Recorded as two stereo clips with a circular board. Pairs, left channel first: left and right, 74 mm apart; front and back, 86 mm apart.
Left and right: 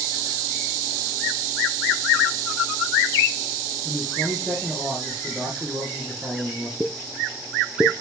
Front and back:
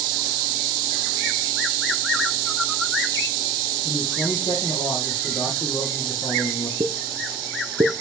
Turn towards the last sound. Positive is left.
turn(degrees=-165)